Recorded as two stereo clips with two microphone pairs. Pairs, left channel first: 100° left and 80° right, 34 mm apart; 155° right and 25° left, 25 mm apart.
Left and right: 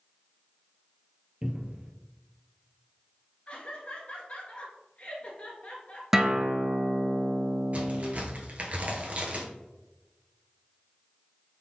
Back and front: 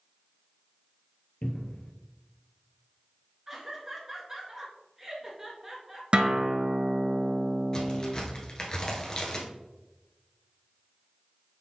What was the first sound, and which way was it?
A cupboard door, 145° right.